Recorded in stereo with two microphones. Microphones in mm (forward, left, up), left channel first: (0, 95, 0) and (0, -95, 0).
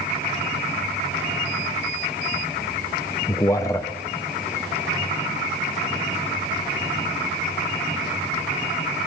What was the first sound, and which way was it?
A man speaking, 15° left (ahead or behind).